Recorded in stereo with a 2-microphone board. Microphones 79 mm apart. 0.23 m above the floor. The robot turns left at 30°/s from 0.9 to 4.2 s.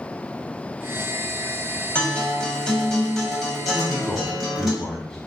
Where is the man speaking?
10° left (ahead or behind), 1.6 m; by 5.2 s 5° left (ahead or behind), 1.6 m.